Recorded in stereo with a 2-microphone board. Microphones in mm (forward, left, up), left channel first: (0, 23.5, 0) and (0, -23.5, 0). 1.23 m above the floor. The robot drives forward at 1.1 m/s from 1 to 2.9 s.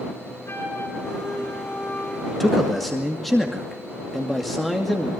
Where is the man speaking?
5° left (ahead or behind), 1.6 m; by 5.1 s centre (ahead or behind), 2.5 m.